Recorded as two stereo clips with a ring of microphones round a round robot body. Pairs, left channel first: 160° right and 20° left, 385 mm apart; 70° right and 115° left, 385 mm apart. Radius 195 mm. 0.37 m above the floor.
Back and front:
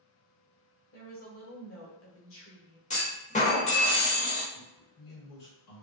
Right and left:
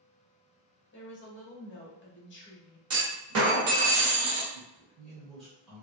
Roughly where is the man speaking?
Behind right.